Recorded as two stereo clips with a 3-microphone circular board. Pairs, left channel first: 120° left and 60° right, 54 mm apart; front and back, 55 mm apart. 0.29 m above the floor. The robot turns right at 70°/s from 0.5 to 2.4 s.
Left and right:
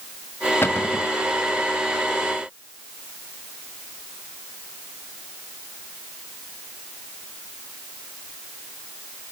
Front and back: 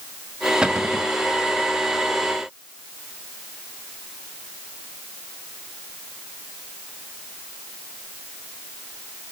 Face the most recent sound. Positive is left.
turn(degrees=-120)